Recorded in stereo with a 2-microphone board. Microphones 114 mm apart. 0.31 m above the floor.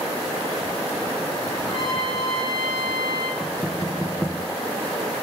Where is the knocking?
15° left (ahead or behind), 1.8 m.